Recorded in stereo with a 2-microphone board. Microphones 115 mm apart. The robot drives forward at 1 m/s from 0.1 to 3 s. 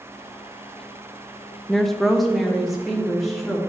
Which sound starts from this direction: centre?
A woman speaking, at 1.7 s.